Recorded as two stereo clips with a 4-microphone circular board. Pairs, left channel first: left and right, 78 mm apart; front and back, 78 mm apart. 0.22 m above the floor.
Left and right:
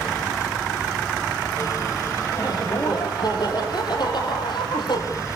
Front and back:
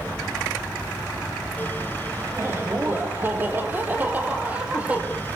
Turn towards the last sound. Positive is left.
turn(degrees=105)